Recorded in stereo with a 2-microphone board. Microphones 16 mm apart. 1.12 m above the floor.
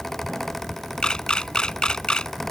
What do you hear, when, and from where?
1.0 s a camera shutter: 65° left (ahead or behind)